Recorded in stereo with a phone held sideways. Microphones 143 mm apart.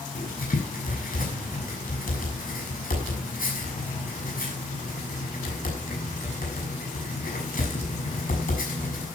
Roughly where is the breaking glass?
I don't hear breaking glass.